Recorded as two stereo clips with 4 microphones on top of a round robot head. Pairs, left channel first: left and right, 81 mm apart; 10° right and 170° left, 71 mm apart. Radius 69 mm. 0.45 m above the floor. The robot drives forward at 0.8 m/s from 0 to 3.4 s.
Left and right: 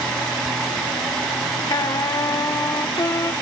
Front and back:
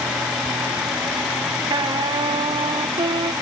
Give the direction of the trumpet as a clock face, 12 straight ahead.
7 o'clock.